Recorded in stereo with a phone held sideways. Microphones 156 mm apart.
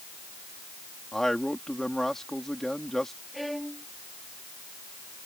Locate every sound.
1.1 s a man speaking: 5° left (ahead or behind)
3.3 s a violin: centre (ahead or behind)